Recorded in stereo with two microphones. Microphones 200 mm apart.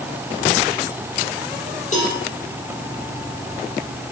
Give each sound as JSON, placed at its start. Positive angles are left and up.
{"t": 1.9, "sound": "a cowbell", "side_deg": 35, "distance_m": 7.0}